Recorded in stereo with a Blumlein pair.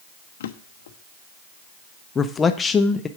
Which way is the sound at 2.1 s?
20° left.